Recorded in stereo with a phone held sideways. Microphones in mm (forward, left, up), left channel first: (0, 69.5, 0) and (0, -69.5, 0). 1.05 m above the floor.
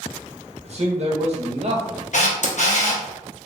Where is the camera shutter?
60° left (ahead or behind), 0.7 m.